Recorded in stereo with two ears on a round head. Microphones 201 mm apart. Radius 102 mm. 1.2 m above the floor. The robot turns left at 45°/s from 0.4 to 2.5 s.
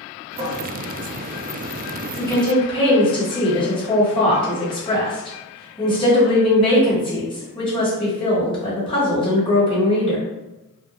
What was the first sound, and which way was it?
A cupboard door, 25° right (ahead or behind).